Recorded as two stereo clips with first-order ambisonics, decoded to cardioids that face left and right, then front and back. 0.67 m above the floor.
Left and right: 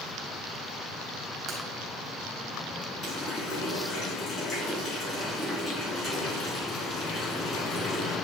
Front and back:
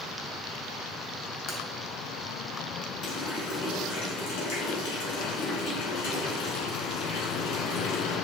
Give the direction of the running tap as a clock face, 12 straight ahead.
12 o'clock.